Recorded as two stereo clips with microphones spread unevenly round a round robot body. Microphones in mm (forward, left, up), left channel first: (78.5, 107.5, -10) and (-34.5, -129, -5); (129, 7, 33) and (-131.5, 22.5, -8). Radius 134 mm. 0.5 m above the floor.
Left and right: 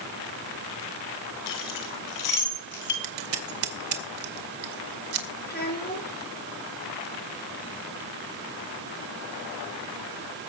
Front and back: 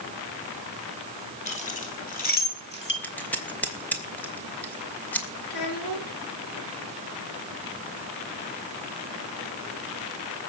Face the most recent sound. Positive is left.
turn(degrees=10)